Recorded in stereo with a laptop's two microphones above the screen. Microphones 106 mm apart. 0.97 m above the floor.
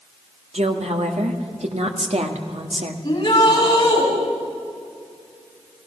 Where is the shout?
40° left (ahead or behind), 7 m.